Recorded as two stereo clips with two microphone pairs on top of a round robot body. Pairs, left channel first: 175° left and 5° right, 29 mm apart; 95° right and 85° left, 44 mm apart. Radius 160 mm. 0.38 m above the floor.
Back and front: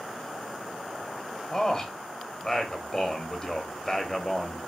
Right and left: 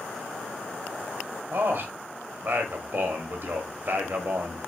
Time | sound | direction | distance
1.5 | a man speaking | 100° left | 1.2 m